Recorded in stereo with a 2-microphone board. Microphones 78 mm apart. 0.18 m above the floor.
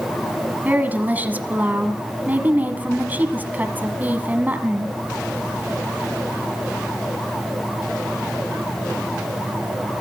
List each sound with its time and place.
0.7 s a woman speaking: 25° right (ahead or behind), 1.4 m